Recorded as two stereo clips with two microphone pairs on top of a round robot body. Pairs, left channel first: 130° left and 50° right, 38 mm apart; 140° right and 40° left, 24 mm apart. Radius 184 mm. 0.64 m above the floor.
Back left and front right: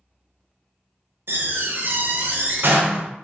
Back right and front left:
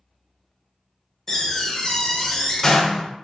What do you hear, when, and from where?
1.3 s a door slam: 70° right, 0.6 m